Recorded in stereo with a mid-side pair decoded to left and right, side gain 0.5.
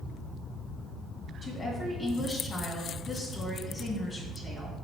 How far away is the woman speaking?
About 2.5 m.